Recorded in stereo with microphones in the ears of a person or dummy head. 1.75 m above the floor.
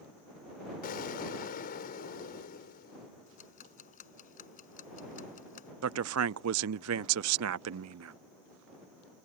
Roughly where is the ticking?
Left.